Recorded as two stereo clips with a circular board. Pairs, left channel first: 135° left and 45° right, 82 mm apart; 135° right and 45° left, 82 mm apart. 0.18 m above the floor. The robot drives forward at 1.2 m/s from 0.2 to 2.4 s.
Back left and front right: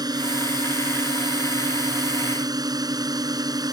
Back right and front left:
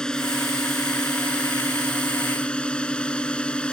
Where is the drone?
55° right; by 3.7 s 60° right.